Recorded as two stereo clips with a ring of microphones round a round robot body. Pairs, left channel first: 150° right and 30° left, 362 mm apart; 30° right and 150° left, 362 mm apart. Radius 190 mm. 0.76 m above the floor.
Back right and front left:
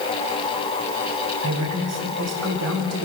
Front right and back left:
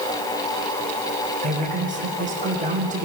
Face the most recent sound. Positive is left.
turn(degrees=80)